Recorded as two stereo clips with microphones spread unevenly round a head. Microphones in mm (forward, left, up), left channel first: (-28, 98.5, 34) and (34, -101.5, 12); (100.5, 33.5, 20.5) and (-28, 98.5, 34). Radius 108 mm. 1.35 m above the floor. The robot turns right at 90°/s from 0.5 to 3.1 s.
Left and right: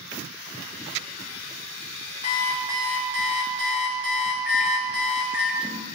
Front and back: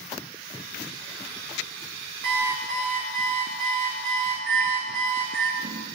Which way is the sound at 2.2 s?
165° left.